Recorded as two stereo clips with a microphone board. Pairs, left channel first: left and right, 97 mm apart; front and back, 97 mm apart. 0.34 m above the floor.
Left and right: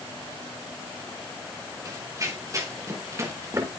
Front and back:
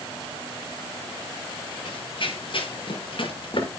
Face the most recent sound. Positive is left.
turn(degrees=-30)